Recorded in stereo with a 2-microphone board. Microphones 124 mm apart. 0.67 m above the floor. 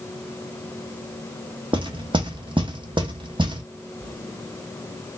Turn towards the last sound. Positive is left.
turn(degrees=-40)  # may be behind; listen again after turning